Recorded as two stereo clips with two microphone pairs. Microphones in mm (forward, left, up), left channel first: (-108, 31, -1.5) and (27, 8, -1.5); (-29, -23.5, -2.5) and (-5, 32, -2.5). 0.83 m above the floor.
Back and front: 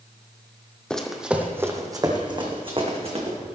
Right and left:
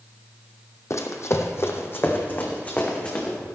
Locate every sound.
0.9 s running footsteps: 110° right, 1.4 m; by 3.4 s 50° right, 2.5 m